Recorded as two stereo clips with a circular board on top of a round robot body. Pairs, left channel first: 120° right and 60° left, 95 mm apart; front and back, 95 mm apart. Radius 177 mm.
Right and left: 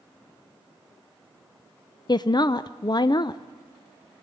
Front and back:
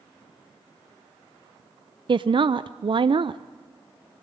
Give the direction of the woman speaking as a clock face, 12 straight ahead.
5 o'clock.